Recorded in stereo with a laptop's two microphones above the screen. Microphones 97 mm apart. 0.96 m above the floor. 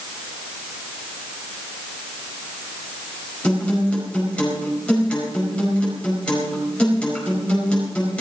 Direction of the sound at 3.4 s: 10° left (ahead or behind).